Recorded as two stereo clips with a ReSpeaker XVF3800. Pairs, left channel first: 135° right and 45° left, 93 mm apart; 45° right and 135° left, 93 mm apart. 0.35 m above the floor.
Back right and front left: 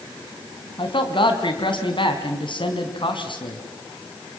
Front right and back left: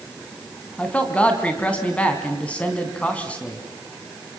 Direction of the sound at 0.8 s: 120° right.